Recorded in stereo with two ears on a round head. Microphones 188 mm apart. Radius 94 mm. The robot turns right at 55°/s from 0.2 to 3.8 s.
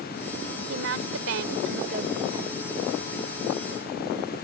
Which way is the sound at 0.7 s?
115° right.